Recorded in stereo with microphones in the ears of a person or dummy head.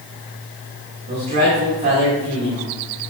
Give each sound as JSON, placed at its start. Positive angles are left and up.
{"t": 1.1, "sound": "a man speaking", "side_deg": -40, "distance_m": 2.5}